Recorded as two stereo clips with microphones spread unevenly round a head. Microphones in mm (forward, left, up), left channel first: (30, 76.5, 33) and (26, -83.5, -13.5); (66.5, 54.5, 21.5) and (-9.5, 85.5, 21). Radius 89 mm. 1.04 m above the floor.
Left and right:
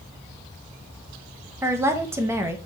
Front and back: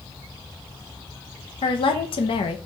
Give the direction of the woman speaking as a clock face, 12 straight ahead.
1 o'clock.